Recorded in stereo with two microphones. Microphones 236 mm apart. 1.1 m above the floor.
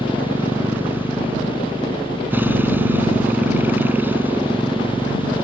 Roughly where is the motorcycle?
Centre.